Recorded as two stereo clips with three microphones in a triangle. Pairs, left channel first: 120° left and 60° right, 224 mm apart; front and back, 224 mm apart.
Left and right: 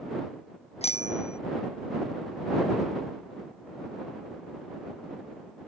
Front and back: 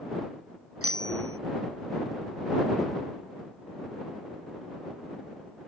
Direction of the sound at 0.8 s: Straight behind.